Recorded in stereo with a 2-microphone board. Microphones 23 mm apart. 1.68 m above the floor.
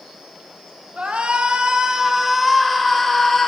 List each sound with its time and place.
1.0 s a shout: 65° right (ahead or behind), 1.5 m; by 3.5 s 10° left (ahead or behind), 2 m